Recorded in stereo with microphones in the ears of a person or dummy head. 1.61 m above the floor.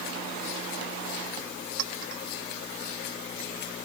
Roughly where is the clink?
Right.